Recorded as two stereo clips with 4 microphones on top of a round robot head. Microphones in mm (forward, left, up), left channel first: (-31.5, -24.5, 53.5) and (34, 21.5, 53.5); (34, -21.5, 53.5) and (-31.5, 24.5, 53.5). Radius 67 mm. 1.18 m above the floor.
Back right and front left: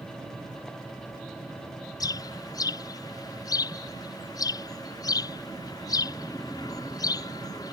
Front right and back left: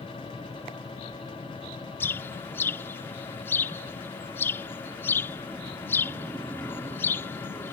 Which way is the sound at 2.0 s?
100° right.